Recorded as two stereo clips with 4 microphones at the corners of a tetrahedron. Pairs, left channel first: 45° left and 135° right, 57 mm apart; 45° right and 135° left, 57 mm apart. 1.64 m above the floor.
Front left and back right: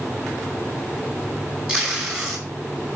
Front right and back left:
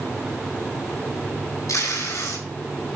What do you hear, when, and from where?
1.7 s tape being pulled: 65° right, 5 m